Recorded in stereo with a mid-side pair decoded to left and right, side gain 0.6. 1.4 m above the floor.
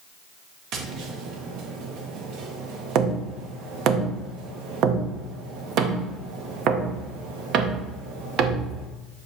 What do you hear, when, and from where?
0.7 s tapping: 65° right, 1.3 m